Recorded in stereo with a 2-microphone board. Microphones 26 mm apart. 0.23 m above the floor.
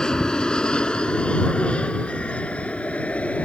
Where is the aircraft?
25° left (ahead or behind); by 3.4 s 60° left (ahead or behind).